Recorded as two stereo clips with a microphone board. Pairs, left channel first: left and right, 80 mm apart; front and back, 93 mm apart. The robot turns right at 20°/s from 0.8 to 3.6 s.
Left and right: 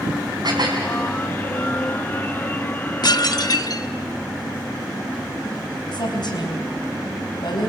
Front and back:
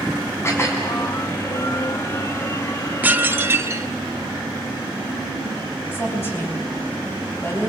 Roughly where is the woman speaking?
Ahead left.